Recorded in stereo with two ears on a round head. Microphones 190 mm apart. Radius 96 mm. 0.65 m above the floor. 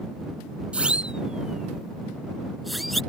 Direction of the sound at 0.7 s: 5° right (ahead or behind).